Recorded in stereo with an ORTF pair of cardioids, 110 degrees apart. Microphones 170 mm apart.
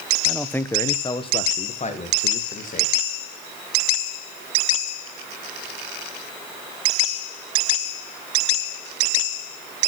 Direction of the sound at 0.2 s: Straight ahead.